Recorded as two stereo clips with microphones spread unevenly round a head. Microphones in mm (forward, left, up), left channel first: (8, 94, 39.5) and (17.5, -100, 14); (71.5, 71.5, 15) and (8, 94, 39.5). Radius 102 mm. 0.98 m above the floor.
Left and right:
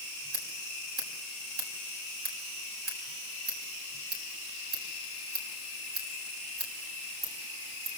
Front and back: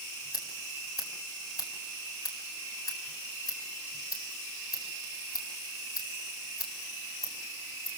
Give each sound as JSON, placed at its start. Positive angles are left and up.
{"t": 0.3, "sound": "scissors", "azimuth_deg": -50, "distance_m": 7.0}